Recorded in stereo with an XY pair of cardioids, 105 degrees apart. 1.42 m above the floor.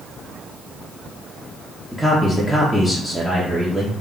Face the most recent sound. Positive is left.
turn(degrees=-5)